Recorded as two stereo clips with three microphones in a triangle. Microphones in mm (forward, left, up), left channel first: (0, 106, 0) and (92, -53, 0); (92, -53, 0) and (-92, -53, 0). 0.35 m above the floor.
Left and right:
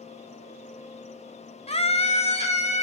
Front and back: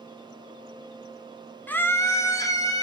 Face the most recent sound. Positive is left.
turn(degrees=70)